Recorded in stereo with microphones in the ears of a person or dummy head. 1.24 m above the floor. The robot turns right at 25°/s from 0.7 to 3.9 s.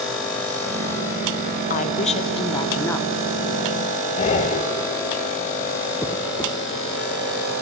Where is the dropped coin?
10° left (ahead or behind), 1.5 m.